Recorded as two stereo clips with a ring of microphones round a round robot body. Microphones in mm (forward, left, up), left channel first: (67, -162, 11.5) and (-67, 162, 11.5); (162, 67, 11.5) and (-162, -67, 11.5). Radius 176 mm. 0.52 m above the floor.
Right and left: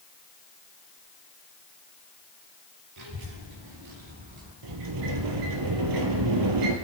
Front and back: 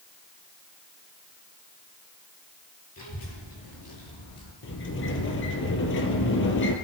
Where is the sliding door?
80° left, 2 m.